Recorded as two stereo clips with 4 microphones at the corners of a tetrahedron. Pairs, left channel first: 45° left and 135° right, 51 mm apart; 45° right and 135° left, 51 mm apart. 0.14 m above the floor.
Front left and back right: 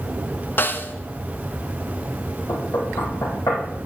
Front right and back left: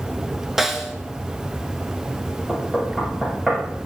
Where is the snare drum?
50° left, 1.1 m.